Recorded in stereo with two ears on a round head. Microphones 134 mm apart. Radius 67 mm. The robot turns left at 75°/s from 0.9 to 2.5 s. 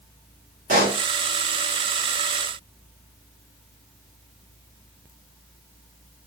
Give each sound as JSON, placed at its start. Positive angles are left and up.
{"t": 0.7, "sound": "a pop", "side_deg": -60, "distance_m": 2.5}